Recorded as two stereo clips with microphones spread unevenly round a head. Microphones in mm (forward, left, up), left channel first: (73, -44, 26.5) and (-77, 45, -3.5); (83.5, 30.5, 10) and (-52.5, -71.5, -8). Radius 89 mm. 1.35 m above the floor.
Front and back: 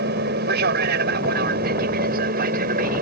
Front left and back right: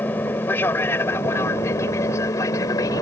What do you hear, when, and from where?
0.0 s an aircraft: 115° left; by 3.0 s 110° left